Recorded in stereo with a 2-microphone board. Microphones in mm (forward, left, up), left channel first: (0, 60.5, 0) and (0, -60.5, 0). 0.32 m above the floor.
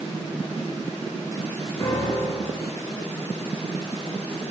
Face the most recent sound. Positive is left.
turn(degrees=35)  # may be behind; listen again after turning